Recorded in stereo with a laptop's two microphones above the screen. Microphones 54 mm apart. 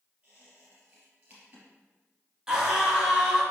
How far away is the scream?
About 1.6 m.